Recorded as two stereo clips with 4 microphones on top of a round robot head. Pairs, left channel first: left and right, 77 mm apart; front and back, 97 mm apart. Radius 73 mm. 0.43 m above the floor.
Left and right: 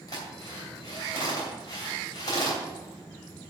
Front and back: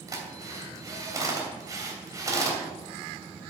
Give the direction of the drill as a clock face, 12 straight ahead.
8 o'clock.